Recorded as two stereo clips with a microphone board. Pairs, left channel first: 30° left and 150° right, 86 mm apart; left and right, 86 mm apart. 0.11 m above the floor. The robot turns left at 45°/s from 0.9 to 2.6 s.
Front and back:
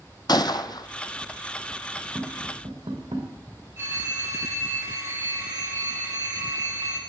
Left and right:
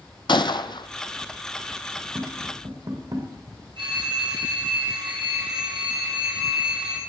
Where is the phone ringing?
90° right, 3 m.